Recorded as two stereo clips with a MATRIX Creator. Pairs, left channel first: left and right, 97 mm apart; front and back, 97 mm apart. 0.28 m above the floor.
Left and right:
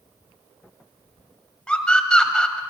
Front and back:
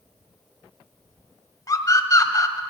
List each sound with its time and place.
1.7 s a scream: 15° left, 1.8 m